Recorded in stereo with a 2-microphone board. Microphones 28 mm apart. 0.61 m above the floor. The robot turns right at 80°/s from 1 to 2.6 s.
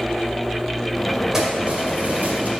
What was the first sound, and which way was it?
Keys jangling, 165° right.